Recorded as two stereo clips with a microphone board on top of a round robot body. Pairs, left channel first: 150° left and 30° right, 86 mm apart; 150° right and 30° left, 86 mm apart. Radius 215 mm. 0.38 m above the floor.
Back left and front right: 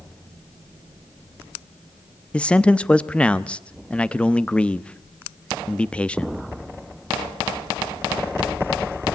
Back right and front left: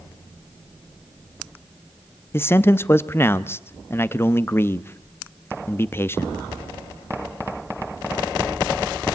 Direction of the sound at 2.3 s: 145° right.